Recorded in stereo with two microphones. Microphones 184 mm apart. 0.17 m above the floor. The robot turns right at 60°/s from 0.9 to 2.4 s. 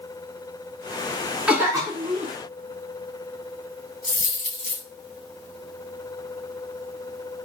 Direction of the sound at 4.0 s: 45° left (ahead or behind).